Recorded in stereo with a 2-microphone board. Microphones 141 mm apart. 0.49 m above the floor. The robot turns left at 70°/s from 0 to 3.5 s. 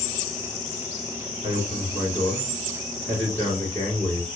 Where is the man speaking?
70° right, 1.5 m; by 4.3 s 145° left, 1.5 m.